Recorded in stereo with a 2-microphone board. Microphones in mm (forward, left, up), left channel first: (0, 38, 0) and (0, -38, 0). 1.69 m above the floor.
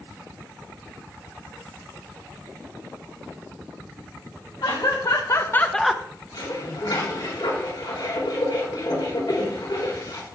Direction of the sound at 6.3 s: 75° left (ahead or behind).